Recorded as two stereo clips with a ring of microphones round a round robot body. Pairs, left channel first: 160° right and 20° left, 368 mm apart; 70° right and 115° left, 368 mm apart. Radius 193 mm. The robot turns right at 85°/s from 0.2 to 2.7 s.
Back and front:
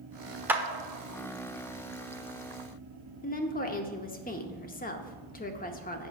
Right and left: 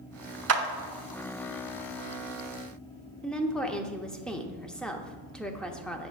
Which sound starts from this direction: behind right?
A woman speaking, at 3.2 s.